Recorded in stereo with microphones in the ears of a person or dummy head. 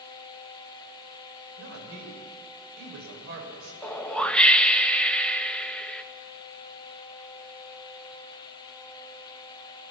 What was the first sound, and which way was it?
A woman speaking, 75° right (ahead or behind).